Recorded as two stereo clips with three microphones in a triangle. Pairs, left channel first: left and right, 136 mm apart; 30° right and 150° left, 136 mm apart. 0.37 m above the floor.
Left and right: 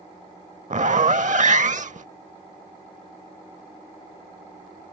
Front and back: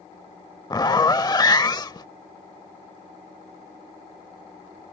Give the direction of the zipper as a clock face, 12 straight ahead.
3 o'clock.